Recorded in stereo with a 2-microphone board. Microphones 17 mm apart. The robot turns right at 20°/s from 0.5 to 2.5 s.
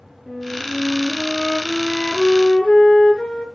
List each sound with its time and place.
0.3 s a flute: 25° left, 4 m; by 3.5 s 65° left, 4 m